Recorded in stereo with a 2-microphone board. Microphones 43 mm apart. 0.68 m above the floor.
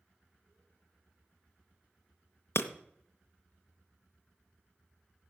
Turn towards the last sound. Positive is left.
turn(degrees=65)  # may be behind; listen again after turning